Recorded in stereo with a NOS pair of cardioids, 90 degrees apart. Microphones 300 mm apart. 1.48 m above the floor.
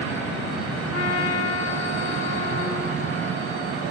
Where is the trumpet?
55° left, 5 m.